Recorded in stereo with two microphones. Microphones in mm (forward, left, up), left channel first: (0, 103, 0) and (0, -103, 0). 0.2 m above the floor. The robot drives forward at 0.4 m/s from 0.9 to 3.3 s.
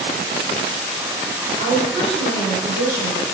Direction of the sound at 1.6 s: 5° right (ahead or behind).